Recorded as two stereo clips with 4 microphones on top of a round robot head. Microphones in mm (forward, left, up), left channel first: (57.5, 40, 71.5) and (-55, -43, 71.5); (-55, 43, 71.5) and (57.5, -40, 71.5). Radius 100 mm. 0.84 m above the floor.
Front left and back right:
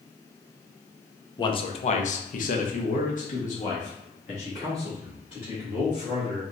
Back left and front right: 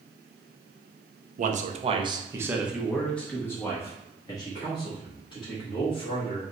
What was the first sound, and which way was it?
A man speaking, 20° right.